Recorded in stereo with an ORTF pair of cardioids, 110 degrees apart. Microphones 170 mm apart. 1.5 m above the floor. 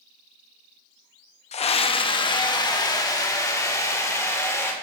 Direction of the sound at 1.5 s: 40° left.